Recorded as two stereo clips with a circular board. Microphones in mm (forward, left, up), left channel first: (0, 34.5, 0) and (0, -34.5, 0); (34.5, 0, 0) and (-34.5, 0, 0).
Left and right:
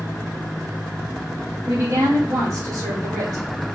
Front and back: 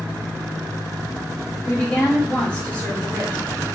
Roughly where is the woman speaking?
Right.